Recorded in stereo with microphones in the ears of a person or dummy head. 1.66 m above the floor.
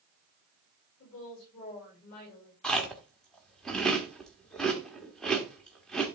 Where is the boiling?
I don't hear boiling.